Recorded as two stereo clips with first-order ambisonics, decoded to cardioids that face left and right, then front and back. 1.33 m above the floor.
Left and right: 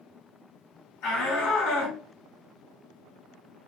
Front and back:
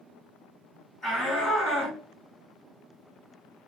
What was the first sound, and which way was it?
A shout, 65° left.